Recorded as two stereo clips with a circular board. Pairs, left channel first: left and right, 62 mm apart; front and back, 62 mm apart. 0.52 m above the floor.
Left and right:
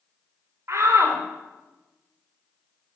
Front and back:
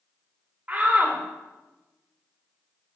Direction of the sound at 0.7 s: 120° right.